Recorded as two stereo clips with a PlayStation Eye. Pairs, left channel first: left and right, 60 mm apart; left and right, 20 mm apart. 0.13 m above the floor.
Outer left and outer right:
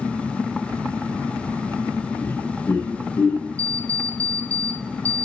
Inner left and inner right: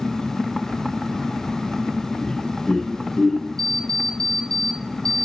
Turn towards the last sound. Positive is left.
turn(degrees=25)  # may be behind; listen again after turning